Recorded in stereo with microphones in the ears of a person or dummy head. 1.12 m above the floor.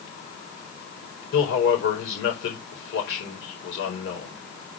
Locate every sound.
1.3 s a man speaking: 90° left, 4 m